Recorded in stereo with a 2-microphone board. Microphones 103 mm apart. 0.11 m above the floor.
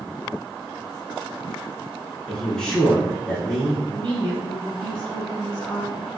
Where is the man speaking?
5° left (ahead or behind), 1.2 m.